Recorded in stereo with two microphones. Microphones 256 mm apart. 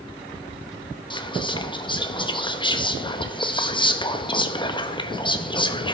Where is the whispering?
15° left (ahead or behind), 0.9 m.